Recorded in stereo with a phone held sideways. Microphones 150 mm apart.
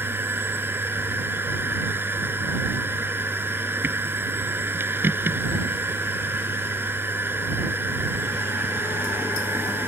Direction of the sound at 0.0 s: 15° right (ahead or behind).